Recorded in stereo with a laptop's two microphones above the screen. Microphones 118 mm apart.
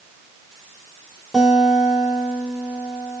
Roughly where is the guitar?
Centre.